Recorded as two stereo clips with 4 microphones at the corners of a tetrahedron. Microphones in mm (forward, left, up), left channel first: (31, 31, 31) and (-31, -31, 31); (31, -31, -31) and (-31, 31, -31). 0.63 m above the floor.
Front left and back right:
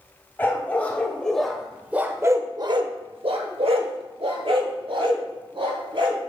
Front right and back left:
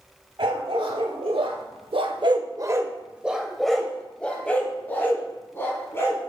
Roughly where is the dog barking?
Behind left.